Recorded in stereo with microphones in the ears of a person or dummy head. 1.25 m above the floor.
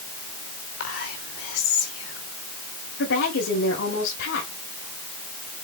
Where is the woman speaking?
75° left (ahead or behind), 7 m.